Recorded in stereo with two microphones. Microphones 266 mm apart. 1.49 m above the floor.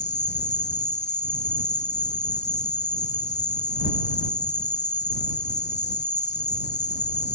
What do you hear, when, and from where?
0.0 s an insect: 40° left (ahead or behind)